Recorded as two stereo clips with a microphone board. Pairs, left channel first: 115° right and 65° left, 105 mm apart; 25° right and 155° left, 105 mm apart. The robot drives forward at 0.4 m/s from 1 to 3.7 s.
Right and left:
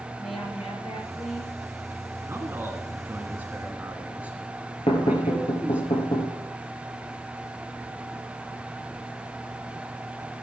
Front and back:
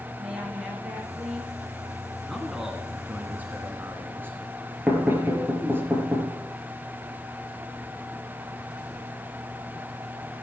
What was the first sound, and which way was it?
A woman speaking, 125° right.